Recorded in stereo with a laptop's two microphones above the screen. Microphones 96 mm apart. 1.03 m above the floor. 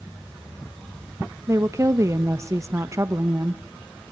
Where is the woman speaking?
30° right (ahead or behind), 1.0 m.